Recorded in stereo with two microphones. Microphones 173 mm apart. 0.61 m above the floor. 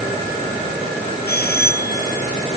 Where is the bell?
65° left (ahead or behind).